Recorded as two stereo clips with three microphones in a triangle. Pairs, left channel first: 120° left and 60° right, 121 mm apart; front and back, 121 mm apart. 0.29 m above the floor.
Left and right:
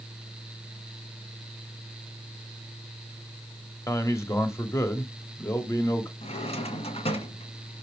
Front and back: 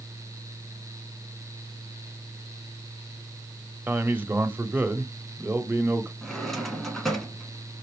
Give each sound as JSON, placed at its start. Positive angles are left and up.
{"t": 3.9, "sound": "a man speaking", "azimuth_deg": 130, "distance_m": 1.0}
{"t": 6.2, "sound": "a drawer", "azimuth_deg": 90, "distance_m": 1.5}